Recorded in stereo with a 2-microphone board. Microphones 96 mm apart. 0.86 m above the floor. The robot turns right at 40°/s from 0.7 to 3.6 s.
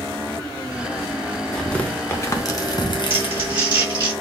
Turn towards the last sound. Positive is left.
turn(degrees=-55)  # may be behind; listen again after turning